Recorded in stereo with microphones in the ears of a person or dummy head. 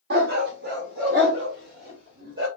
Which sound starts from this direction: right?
A dog barking, at 0.1 s.